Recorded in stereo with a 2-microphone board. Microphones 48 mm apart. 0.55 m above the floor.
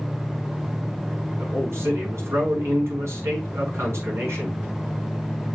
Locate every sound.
1.4 s a man speaking: 75° right (ahead or behind), 5.5 m